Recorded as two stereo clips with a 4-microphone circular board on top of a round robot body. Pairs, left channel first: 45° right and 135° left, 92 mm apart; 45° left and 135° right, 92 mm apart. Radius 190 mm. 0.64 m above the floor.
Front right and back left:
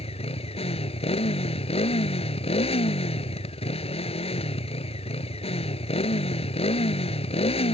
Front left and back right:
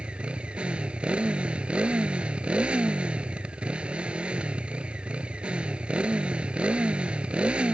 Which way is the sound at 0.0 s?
55° right.